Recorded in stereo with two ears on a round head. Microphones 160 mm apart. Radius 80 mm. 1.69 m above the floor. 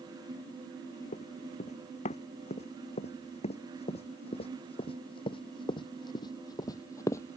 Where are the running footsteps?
40° left (ahead or behind); by 7.4 s 15° left (ahead or behind).